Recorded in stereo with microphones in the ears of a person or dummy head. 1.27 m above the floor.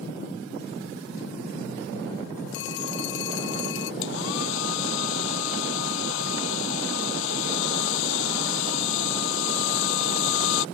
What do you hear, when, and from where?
2.5 s a phone ringing: 70° left (ahead or behind)
4.0 s a hair dryer: 75° left (ahead or behind)